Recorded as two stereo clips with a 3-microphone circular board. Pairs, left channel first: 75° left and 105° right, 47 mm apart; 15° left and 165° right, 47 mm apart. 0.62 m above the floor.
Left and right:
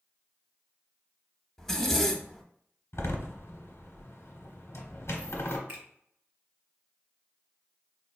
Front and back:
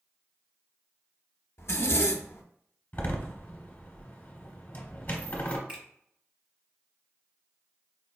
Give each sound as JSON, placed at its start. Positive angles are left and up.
{"t": 1.6, "sound": "a zipper", "azimuth_deg": -5, "distance_m": 0.5}
{"t": 2.9, "sound": "a door slam", "azimuth_deg": 65, "distance_m": 0.9}
{"t": 5.7, "sound": "a finger snap", "azimuth_deg": -110, "distance_m": 1.4}